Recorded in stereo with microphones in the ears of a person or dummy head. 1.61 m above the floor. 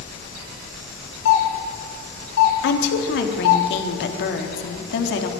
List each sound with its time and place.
1.2 s a doorbell: 70° left (ahead or behind), 5.5 m
2.6 s a woman speaking: 65° left (ahead or behind), 3.5 m